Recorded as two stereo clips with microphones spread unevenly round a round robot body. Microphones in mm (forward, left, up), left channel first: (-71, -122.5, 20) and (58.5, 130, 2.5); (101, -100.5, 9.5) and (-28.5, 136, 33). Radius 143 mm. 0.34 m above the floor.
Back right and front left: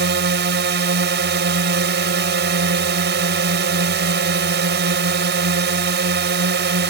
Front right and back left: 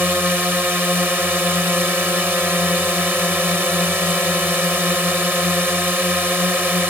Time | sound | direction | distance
0.0 | a drone | 35° left | ?